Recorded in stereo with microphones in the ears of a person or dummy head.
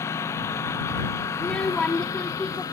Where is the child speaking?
5° left (ahead or behind).